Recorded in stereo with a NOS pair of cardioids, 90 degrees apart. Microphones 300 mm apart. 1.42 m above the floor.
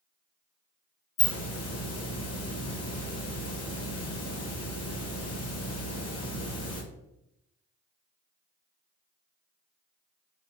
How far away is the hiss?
About 1.1 m.